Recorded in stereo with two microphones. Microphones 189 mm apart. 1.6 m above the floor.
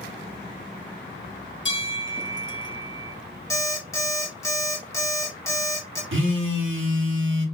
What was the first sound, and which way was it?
A bell, 75° left (ahead or behind).